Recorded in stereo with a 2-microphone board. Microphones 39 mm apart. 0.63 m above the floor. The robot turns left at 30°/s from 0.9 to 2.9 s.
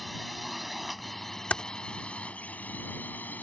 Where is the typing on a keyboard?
40° left (ahead or behind); by 1.6 s 45° left (ahead or behind).